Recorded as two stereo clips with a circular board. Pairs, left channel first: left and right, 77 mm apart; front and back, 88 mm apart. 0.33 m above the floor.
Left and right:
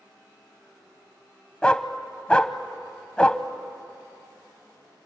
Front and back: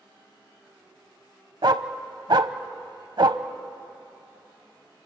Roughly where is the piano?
No piano in this recording.